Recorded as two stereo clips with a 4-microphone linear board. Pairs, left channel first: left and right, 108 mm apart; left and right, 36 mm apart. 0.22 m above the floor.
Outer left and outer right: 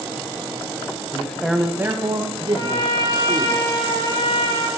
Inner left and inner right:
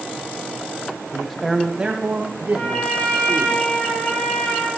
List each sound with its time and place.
1.1 s a man speaking: 20° left (ahead or behind), 1.1 m; by 3.5 s 55° right (ahead or behind), 2.5 m
2.5 s a trumpet: 45° left (ahead or behind), 5.5 m